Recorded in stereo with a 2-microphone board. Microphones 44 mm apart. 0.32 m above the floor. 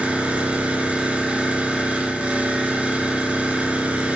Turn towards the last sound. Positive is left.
turn(degrees=-30)  # may be behind; listen again after turning